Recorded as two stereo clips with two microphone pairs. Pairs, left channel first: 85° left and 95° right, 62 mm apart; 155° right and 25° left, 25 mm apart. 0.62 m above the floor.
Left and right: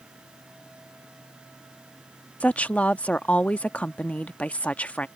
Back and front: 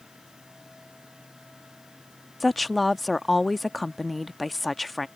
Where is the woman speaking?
120° left.